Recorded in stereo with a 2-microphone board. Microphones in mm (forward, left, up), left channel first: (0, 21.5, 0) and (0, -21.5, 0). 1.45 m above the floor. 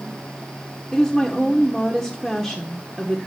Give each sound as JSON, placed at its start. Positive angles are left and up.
{"t": 0.9, "sound": "a woman speaking", "side_deg": 0, "distance_m": 1.3}